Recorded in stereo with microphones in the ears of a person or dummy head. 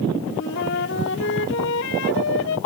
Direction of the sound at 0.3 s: 65° left (ahead or behind).